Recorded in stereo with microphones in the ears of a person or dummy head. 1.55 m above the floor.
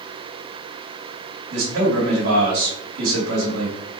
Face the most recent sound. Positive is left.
turn(degrees=-80)